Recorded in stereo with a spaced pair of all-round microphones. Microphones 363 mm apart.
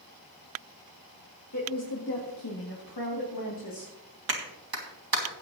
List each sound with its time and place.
1.5 s a woman speaking: 50° left (ahead or behind), 1.9 m; by 3.9 s 60° left (ahead or behind), 2.5 m
4.3 s a clap: 75° right (ahead or behind), 2 m